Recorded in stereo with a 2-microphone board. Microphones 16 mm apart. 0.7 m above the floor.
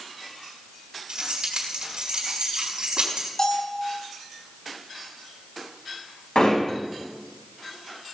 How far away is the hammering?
About 4 m.